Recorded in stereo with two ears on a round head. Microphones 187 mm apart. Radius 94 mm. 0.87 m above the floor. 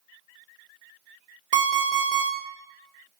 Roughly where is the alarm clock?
Right.